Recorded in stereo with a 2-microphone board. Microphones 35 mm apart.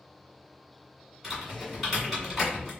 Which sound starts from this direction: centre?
Typing on a keyboard, at 1.2 s.